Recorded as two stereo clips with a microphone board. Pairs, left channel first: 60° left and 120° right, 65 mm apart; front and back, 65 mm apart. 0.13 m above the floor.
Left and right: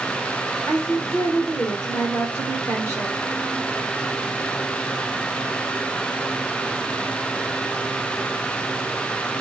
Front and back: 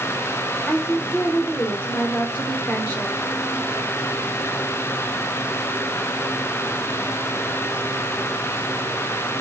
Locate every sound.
0.7 s a woman speaking: 55° left, 1.4 m